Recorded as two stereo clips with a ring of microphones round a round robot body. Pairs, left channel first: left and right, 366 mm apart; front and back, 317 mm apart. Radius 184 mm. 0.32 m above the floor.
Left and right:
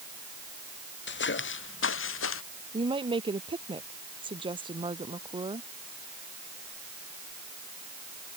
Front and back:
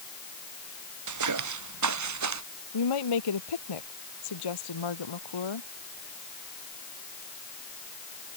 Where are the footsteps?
150° left; by 2.4 s 145° left.